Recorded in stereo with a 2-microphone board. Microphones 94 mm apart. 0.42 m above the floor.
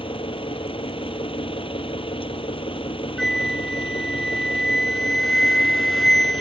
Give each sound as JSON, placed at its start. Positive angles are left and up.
{"t": 0.0, "sound": "an engine running", "side_deg": 70}
{"t": 3.2, "sound": "a flute", "side_deg": 5}